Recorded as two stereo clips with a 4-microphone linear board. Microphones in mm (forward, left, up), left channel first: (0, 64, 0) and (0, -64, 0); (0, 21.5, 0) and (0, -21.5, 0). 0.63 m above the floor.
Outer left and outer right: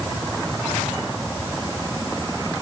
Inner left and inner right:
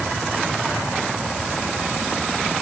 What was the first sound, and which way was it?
Only background noise.